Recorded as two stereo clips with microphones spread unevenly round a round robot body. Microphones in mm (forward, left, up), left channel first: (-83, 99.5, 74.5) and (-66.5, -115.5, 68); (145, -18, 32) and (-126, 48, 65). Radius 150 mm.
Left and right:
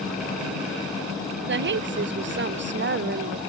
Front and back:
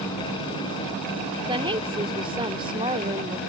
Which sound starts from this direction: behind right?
A woman speaking, at 1.5 s.